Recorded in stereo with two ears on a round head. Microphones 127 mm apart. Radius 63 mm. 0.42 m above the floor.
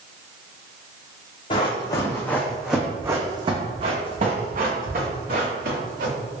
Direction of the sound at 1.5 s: 40° left (ahead or behind).